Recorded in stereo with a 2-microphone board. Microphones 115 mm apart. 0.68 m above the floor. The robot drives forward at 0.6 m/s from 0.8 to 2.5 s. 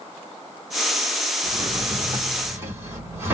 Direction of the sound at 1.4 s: 35° right (ahead or behind).